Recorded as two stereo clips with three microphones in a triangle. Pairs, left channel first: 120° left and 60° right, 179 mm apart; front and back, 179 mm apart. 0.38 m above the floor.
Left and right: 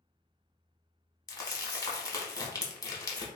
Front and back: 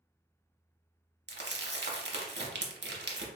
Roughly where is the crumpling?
Behind.